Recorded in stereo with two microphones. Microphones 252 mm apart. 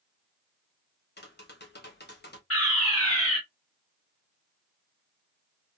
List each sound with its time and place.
1.2 s tapping: 40° left (ahead or behind), 0.9 m
2.5 s a fire alarm: 60° left (ahead or behind), 2.5 m